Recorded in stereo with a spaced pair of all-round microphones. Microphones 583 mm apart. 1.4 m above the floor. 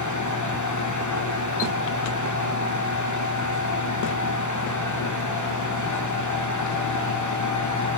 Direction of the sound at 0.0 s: 30° left (ahead or behind).